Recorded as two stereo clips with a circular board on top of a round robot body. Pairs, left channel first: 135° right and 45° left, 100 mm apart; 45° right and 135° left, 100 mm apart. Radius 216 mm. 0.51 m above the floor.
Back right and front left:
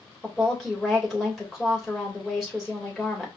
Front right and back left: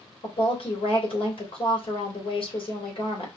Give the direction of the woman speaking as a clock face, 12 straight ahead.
1 o'clock.